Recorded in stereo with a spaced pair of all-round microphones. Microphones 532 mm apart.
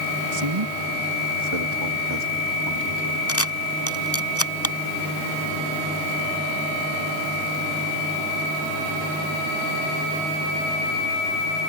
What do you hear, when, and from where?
0.3 s a man speaking: 70° right (ahead or behind); by 3.2 s 50° right (ahead or behind)
3.3 s a camera shutter: 25° left (ahead or behind)